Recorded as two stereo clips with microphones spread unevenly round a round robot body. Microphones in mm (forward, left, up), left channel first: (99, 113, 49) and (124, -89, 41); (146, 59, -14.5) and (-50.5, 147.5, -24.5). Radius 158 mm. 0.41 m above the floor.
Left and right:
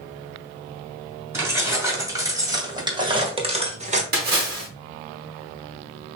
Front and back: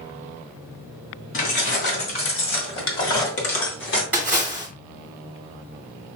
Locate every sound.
1.3 s keys jangling: 5° right, 3 m; by 4.0 s 40° right, 1.2 m
4.1 s a splash: 120° right, 1.1 m